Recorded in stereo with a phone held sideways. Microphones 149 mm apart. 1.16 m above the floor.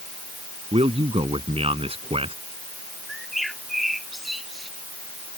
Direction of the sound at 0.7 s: 40° right (ahead or behind).